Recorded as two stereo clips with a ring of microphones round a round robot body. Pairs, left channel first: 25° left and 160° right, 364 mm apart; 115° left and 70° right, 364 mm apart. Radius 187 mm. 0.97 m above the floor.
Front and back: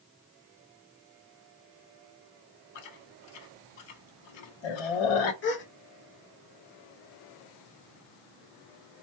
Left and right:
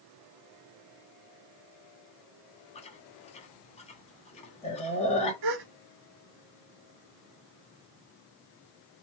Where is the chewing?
40° left, 1.0 m.